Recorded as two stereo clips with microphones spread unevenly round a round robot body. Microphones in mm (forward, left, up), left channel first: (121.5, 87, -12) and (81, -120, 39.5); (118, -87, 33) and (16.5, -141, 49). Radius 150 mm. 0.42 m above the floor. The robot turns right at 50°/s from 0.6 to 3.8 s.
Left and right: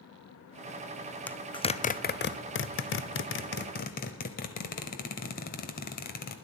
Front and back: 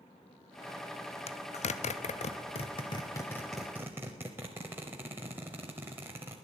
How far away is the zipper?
About 0.6 m.